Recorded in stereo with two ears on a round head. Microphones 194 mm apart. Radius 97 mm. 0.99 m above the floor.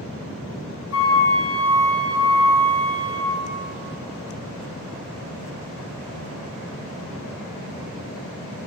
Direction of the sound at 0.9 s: 60° left (ahead or behind).